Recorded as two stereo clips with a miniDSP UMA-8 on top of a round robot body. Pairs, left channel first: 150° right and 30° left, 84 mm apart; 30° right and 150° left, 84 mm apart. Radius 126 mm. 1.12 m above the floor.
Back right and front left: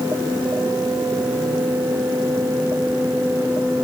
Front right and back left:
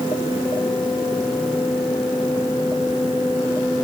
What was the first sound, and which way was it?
Only background noise.